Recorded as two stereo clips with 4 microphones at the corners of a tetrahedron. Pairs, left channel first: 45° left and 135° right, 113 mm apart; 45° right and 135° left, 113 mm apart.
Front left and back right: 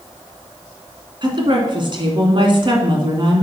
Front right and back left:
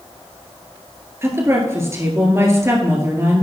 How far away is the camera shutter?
No camera shutter in this recording.